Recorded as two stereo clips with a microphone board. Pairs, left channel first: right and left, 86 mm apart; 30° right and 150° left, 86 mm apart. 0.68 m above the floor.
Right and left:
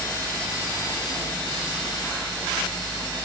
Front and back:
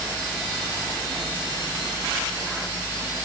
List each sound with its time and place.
Only background noise.